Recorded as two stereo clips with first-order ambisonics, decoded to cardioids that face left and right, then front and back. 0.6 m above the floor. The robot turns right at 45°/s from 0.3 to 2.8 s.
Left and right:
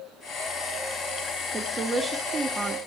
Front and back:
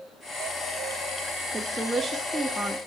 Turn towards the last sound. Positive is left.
turn(degrees=-90)